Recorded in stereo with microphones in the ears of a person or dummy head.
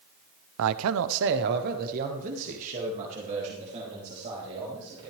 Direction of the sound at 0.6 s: 75° right (ahead or behind).